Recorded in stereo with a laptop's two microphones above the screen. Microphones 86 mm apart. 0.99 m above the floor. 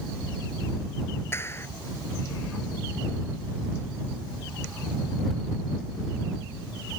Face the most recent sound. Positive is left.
turn(degrees=30)  # may be behind; listen again after turning